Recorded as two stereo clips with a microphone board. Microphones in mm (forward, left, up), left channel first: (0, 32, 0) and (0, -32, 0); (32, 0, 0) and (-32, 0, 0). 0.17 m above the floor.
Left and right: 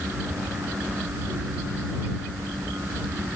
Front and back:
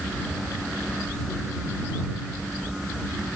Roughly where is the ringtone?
No ringtone in this recording.